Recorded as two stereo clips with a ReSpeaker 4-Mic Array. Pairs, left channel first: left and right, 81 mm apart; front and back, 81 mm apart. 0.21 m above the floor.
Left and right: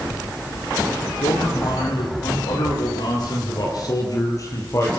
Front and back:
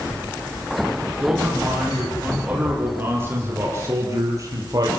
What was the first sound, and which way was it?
A man speaking, 105° left.